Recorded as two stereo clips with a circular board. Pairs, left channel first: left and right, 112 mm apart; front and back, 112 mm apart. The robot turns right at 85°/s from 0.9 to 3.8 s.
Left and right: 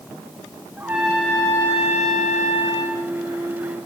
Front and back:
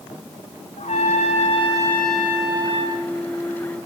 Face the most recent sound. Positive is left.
turn(degrees=-130)